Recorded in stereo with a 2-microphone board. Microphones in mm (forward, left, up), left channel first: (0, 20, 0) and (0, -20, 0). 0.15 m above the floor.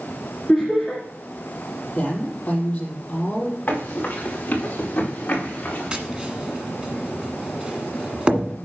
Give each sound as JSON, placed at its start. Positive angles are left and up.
{"t": 0.5, "sound": "laughter", "side_deg": 15, "distance_m": 2.0}
{"t": 1.9, "sound": "a woman speaking", "side_deg": 30, "distance_m": 5.0}
{"t": 3.7, "sound": "running footsteps", "side_deg": 40, "distance_m": 4.5}
{"t": 5.9, "sound": "tapping", "side_deg": -25, "distance_m": 1.5}